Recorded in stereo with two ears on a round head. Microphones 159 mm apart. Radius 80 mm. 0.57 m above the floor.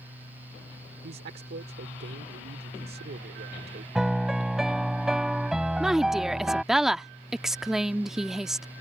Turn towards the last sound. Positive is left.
turn(degrees=0)  # may be behind; listen again after turning